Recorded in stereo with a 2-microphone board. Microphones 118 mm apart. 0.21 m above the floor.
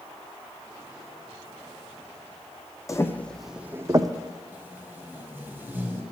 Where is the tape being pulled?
20° right (ahead or behind), 1.2 m.